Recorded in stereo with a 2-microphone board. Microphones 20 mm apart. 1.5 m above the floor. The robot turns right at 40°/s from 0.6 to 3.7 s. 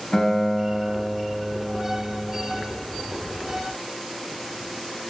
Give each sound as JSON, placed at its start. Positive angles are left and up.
{"t": 0.1, "sound": "a guitar", "azimuth_deg": 130, "distance_m": 1.5}